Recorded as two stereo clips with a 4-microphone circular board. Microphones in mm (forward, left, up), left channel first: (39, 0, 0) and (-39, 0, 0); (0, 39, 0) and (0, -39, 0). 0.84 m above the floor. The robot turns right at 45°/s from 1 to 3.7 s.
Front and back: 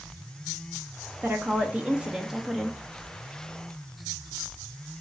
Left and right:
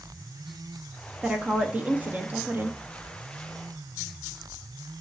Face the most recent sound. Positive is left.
turn(degrees=-40)